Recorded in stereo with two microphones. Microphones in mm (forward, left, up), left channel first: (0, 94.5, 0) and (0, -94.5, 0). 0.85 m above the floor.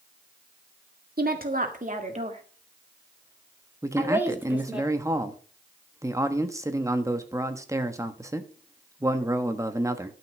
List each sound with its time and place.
1.2 s a woman speaking: 55° right (ahead or behind), 1.9 m; by 4.8 s 5° right (ahead or behind), 2.5 m
3.8 s a man speaking: 15° right (ahead or behind), 1.2 m